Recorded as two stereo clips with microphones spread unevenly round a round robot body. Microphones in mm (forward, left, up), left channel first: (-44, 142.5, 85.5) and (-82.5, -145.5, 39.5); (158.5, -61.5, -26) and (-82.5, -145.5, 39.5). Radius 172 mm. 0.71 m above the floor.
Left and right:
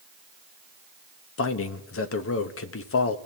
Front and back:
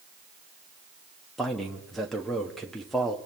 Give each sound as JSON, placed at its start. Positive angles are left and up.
{"t": 1.4, "sound": "a man speaking", "azimuth_deg": 85, "distance_m": 0.9}